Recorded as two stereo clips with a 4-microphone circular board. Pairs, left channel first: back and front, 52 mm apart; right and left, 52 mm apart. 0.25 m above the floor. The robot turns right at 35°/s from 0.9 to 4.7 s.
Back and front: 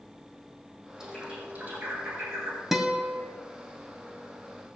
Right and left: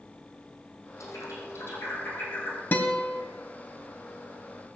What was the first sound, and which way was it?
A bird, 80° right.